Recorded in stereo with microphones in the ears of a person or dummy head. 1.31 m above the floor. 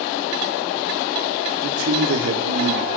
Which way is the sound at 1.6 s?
70° right (ahead or behind).